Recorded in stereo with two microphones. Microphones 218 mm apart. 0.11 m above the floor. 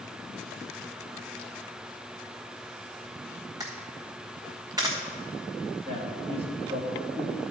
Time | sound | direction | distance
3.6 | a camera shutter | 15° right (ahead or behind) | 1.4 m
5.8 | a man speaking | 25° right (ahead or behind) | 2.5 m